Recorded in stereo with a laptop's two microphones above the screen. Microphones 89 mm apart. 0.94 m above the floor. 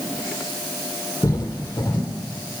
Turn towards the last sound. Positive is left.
turn(degrees=35)  # may be behind; listen again after turning